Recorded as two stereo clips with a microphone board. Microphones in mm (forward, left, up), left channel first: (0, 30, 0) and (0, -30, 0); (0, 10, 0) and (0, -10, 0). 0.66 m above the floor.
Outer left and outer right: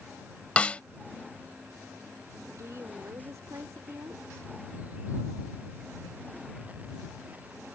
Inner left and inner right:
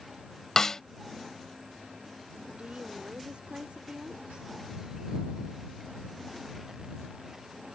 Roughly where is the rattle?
No rattle in this recording.